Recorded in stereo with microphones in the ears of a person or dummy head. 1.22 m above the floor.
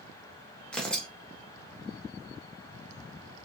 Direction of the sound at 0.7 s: 5° left (ahead or behind).